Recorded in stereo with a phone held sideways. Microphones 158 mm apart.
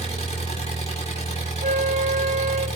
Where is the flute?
50° right (ahead or behind), 1.6 m.